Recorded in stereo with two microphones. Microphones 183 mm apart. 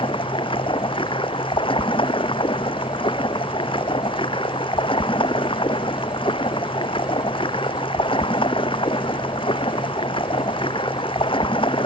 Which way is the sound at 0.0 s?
30° left (ahead or behind).